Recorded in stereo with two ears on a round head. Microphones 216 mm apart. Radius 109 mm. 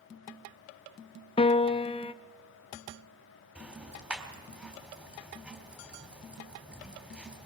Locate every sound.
1.4 s a piano: 25° left (ahead or behind), 0.6 m
3.5 s ticking: 5° right (ahead or behind), 3.5 m